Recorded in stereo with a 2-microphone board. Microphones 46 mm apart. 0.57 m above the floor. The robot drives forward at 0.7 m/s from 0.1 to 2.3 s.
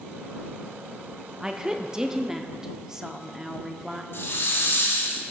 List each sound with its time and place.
1.4 s a woman speaking: 15° right (ahead or behind), 0.6 m; by 4.0 s 10° right (ahead or behind), 0.8 m
4.1 s a hiss: 60° left (ahead or behind), 1.9 m